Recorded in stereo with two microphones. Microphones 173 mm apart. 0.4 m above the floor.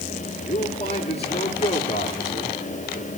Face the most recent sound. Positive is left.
turn(degrees=40)  # may be behind; listen again after turning